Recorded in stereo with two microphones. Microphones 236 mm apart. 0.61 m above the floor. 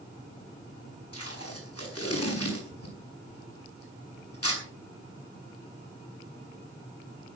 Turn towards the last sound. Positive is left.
turn(degrees=80)